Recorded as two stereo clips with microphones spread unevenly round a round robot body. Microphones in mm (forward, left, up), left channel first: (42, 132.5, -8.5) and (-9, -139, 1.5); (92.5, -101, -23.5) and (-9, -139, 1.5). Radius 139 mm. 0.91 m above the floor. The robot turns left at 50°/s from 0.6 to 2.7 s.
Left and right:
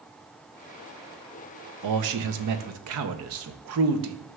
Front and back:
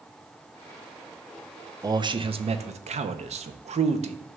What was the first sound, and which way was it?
A man speaking, 95° right.